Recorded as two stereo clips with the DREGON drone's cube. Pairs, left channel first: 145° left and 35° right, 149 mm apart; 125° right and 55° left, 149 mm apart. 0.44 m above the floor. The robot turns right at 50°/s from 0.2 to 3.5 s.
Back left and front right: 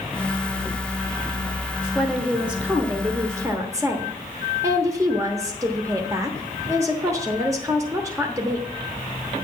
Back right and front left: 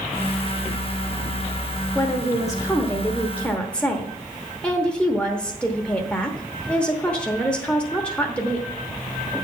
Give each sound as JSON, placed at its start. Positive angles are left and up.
{"t": 1.9, "sound": "a woman speaking", "azimuth_deg": -130, "distance_m": 0.9}